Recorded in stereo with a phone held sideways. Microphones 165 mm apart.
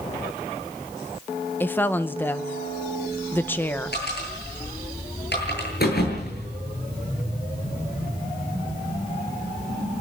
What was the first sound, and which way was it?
A woman speaking, 10° left (ahead or behind).